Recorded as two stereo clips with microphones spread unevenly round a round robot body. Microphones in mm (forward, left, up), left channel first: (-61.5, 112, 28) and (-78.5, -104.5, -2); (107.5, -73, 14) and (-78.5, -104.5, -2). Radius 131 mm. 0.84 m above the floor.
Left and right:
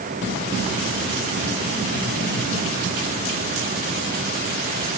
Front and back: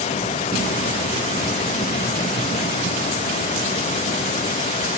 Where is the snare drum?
I don't hear a snare drum.